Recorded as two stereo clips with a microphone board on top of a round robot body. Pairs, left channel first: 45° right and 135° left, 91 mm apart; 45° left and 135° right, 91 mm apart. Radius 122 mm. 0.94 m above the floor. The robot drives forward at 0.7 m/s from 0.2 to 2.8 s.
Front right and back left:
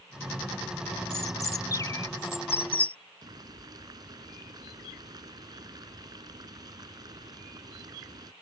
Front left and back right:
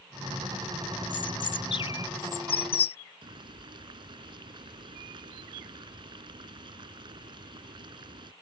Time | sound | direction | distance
1.1 | a bird | 10° left | ?
3.2 | boiling | 175° right | ?